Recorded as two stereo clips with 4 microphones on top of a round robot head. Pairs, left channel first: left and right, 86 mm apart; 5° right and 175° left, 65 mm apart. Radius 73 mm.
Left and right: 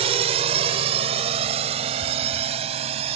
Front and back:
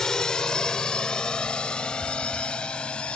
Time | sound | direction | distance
0.0 | a drone | 90° right | ?